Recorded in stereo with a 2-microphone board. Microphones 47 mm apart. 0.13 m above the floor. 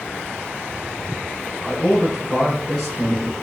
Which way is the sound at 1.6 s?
25° left (ahead or behind).